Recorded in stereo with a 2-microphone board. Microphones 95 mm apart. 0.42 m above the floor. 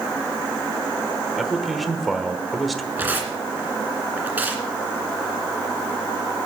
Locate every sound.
1.4 s a man speaking: centre (ahead or behind), 1.2 m
3.0 s tearing paper: 20° right (ahead or behind), 2.5 m